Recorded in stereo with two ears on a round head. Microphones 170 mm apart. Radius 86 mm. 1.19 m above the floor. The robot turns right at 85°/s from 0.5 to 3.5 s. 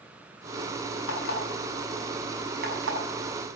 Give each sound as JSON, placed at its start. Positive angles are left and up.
{"t": 1.1, "sound": "an alarm clock", "side_deg": 75, "distance_m": 6.5}